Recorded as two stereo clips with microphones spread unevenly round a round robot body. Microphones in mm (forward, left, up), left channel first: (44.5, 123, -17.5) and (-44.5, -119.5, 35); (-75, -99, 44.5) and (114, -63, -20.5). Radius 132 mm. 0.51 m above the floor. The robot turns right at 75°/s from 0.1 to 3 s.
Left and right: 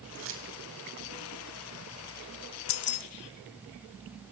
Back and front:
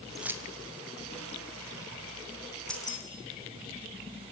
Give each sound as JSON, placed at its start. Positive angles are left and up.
{"t": 0.1, "sound": "keys jangling", "azimuth_deg": -75, "distance_m": 3.0}
{"t": 2.7, "sound": "keys jangling", "azimuth_deg": 95, "distance_m": 1.1}